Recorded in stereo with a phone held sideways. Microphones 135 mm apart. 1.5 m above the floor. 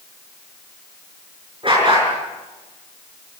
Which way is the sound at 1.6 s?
40° right (ahead or behind).